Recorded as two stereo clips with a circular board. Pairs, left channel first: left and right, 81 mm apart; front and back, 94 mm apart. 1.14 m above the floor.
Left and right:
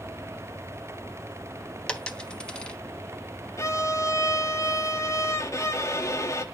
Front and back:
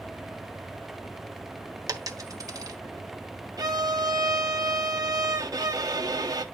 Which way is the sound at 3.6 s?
135° left.